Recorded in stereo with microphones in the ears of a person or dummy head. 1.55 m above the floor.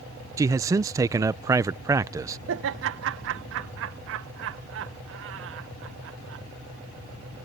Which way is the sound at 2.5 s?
65° right (ahead or behind).